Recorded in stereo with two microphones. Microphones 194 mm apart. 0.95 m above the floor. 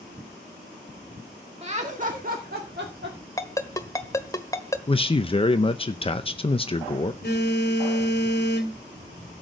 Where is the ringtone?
15° left (ahead or behind), 1.3 m.